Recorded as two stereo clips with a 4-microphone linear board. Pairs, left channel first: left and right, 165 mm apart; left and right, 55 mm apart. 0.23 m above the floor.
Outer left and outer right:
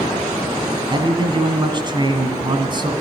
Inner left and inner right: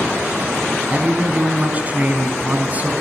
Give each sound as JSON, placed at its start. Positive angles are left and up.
{"t": 0.9, "sound": "a man speaking", "side_deg": -30, "distance_m": 1.8}